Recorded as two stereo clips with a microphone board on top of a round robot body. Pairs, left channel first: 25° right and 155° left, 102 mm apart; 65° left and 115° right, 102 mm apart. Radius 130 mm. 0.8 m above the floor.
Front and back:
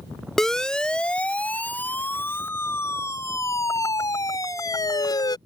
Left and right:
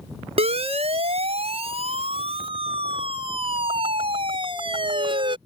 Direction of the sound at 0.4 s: 110° right.